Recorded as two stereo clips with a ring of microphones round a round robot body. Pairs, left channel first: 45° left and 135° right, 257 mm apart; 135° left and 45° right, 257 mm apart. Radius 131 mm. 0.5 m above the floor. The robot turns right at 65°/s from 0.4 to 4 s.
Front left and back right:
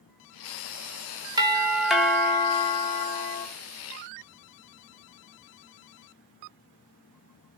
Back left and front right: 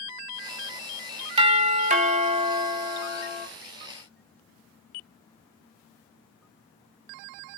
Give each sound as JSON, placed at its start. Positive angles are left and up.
{"t": 1.4, "sound": "a doorbell", "azimuth_deg": -80, "distance_m": 1.6}